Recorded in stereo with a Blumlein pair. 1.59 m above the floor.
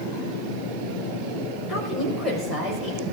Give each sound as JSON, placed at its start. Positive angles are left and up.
{"t": 1.7, "sound": "a woman speaking", "azimuth_deg": 5, "distance_m": 6.0}